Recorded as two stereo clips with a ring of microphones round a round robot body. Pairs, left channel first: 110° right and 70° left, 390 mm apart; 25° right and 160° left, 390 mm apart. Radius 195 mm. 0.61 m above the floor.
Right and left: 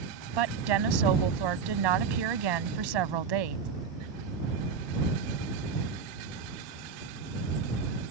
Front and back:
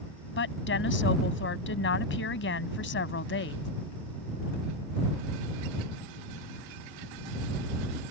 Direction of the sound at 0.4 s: 40° left.